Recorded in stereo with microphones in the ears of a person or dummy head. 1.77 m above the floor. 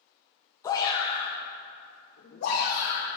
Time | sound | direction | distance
0.6 | a shout | 20° left (ahead or behind) | 1.5 m